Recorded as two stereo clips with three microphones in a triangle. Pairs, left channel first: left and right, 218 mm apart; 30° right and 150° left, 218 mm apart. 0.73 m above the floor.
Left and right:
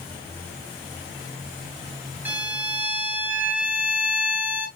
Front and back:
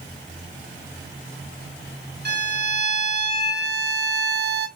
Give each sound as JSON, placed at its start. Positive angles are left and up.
{"t": 2.2, "sound": "a violin", "azimuth_deg": -170, "distance_m": 0.6}